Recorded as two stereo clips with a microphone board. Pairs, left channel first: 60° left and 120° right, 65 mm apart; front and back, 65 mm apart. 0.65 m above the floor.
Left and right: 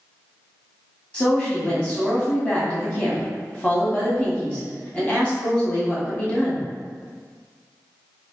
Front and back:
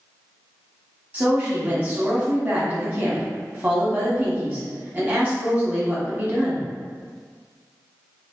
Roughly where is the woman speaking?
Behind left.